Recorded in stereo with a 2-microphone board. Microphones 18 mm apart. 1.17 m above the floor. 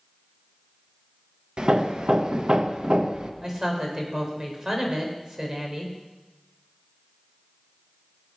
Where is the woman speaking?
35° right (ahead or behind), 3.5 m.